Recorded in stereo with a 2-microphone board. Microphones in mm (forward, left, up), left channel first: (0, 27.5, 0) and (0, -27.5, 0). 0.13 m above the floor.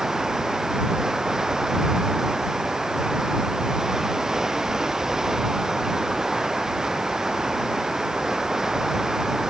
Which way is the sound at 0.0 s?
10° right (ahead or behind).